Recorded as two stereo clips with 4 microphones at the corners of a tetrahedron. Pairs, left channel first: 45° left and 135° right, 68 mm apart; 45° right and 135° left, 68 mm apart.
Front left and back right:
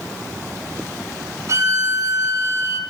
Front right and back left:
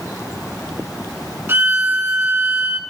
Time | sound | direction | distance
1.5 | a violin | 170° right | 1.3 m